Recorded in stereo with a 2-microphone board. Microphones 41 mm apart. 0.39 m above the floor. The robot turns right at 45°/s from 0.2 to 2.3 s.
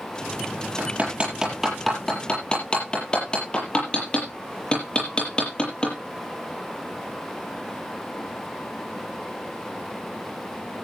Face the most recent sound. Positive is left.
turn(degrees=25)  # may be behind; listen again after turning